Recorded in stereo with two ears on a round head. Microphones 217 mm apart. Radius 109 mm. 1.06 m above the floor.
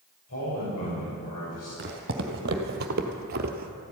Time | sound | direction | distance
0.3 | a man speaking | 65° left (ahead or behind) | 5.5 m
1.8 | footsteps | 40° right (ahead or behind) | 2 m